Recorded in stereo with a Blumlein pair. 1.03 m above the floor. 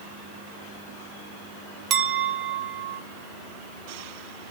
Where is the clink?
25° right, 0.8 m.